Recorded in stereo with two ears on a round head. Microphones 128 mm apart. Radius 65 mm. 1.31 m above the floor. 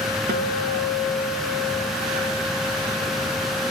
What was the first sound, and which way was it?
A guitar, 75° right (ahead or behind).